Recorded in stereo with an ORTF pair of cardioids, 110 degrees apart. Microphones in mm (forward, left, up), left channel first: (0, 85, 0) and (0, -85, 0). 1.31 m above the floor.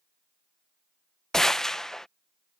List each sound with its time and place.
1.3 s a gunshot: 5° left